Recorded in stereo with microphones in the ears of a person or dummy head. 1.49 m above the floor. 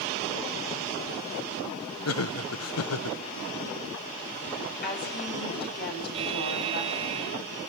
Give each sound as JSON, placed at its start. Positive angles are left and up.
{"t": 2.0, "sound": "laughter", "side_deg": 85, "distance_m": 1.0}
{"t": 4.8, "sound": "a woman speaking", "side_deg": 55, "distance_m": 9.5}
{"t": 6.1, "sound": "a buzzer", "side_deg": -35, "distance_m": 2.0}